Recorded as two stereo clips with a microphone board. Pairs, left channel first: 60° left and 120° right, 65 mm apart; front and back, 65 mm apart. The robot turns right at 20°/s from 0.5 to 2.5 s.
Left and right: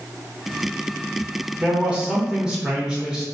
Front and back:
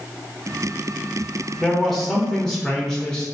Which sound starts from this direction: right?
A man speaking, at 1.6 s.